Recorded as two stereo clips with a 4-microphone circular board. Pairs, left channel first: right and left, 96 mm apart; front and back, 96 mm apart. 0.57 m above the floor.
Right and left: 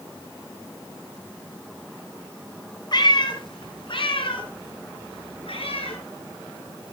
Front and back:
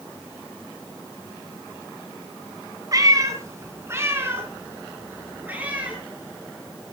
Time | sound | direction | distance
2.9 | a cat meowing | 130° right | 2.5 m